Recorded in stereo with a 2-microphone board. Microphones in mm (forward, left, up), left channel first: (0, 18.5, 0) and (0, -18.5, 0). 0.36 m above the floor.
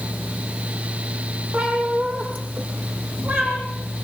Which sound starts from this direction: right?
A cat meowing, at 1.5 s.